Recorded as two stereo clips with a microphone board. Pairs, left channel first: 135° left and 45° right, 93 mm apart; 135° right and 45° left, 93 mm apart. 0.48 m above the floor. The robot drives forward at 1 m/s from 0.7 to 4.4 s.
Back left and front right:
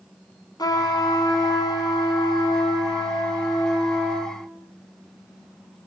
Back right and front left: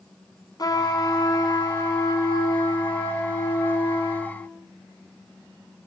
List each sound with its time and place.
0.6 s a trumpet: straight behind, 3.5 m